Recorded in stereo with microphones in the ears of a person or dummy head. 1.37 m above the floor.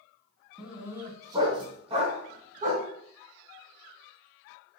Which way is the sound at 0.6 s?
5° right (ahead or behind).